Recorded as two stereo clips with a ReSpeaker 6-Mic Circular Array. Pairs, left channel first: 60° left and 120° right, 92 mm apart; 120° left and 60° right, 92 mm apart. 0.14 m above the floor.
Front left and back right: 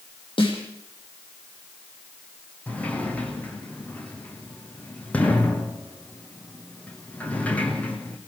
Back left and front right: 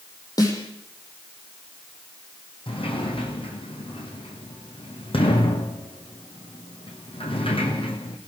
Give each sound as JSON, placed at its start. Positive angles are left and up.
{"t": 0.4, "sound": "a snare drum", "azimuth_deg": 70, "distance_m": 6.0}
{"t": 2.7, "sound": "a sliding door", "azimuth_deg": 135, "distance_m": 2.5}